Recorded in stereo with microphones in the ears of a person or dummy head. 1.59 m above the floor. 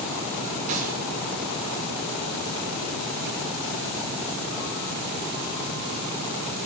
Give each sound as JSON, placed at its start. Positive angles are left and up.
{"t": 0.7, "sound": "a gunshot", "side_deg": -50, "distance_m": 2.5}